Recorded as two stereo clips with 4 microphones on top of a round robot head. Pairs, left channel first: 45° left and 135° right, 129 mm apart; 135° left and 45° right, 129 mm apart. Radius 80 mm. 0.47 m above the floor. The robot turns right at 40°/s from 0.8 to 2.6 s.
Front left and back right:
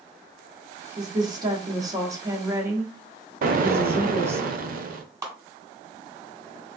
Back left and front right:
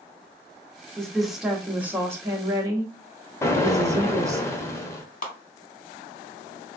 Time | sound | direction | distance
1.0 | a woman speaking | 145° right | 0.9 m
3.4 | an explosion | 155° right | 0.5 m
5.2 | a clap | 160° left | 1.3 m